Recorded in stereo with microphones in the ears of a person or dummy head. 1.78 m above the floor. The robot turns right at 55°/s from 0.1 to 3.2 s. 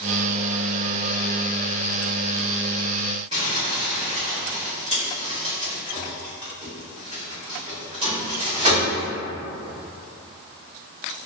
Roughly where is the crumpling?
Right.